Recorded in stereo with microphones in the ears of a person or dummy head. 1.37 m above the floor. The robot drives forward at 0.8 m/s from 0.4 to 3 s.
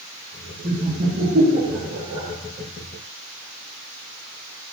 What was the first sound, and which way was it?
Laughter, 35° right (ahead or behind).